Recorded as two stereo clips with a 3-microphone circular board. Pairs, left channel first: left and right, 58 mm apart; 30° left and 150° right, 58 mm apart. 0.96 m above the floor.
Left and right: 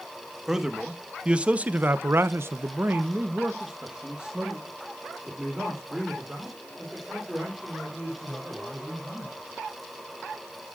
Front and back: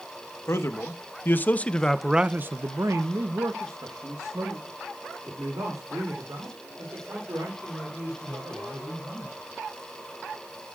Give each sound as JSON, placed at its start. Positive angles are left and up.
{"t": 0.5, "sound": "a man speaking", "azimuth_deg": -10, "distance_m": 1.2}